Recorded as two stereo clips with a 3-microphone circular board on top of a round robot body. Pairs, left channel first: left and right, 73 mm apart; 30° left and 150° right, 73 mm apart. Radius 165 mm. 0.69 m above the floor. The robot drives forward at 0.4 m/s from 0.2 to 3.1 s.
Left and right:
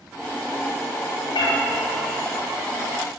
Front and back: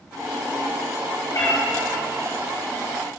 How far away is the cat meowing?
About 1.4 m.